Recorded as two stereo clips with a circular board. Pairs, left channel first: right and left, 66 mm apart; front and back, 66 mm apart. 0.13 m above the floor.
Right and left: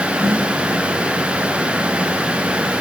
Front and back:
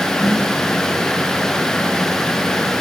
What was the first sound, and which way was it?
A snare drum, 40° left.